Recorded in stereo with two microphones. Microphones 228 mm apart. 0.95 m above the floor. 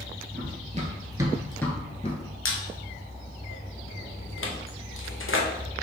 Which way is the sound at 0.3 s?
40° right (ahead or behind).